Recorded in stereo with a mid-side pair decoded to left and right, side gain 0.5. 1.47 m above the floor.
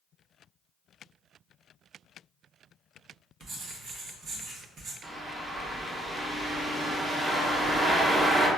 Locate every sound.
3.4 s writing: 60° right, 1.1 m
5.0 s a bird: 15° right, 0.9 m